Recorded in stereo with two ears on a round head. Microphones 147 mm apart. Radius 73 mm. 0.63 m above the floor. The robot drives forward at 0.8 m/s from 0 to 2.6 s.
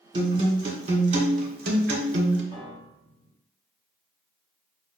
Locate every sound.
0.1 s a guitar: 30° right (ahead or behind), 2.0 m; by 2.4 s 75° right (ahead or behind), 1.0 m
2.5 s a piano: 25° right (ahead or behind), 1.5 m